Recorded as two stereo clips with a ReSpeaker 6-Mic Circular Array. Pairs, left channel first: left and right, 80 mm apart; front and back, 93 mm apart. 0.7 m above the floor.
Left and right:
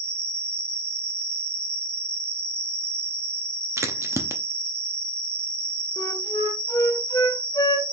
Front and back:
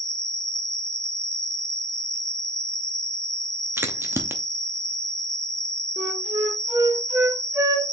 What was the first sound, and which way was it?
An insect, 135° right.